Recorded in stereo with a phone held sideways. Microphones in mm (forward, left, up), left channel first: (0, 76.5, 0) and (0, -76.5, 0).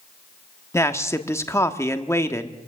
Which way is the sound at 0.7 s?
15° left (ahead or behind).